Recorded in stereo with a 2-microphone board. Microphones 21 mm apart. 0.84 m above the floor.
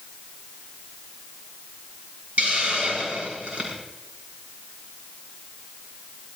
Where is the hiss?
80° right, 6.5 m.